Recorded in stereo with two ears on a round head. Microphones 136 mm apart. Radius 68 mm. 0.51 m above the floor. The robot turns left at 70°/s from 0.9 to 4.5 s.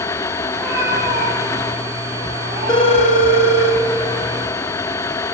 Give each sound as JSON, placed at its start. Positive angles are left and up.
{"t": 0.5, "sound": "a cat meowing", "azimuth_deg": -10, "distance_m": 9.5}
{"t": 2.7, "sound": "a phone ringing", "azimuth_deg": 150, "distance_m": 4.5}